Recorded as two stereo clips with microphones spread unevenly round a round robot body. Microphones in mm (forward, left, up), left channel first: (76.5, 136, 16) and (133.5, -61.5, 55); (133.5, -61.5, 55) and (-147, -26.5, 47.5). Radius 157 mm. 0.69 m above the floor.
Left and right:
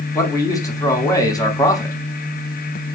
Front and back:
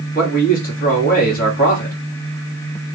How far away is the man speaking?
About 1.3 m.